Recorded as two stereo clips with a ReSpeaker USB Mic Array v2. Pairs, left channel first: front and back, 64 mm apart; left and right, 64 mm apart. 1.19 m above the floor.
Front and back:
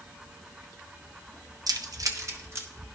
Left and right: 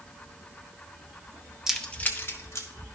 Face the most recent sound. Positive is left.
turn(degrees=130)